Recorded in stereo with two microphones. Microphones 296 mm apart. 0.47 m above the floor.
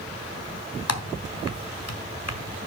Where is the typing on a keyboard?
55° left (ahead or behind), 1.5 m.